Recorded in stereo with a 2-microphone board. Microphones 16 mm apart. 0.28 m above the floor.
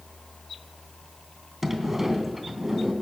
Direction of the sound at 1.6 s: 15° right (ahead or behind).